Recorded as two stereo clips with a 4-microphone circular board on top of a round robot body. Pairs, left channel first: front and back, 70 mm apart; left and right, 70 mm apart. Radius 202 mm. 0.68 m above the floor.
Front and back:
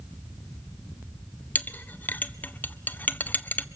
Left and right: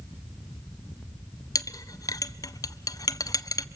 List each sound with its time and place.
1.6 s a clink: 65° left, 0.8 m